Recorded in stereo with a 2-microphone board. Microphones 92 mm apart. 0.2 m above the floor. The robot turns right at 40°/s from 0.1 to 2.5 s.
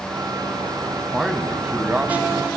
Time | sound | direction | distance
1.1 | a man speaking | 5° right (ahead or behind) | 1.1 m